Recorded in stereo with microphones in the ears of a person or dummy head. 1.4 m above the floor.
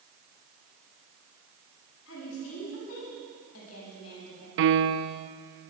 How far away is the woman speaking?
About 9.5 m.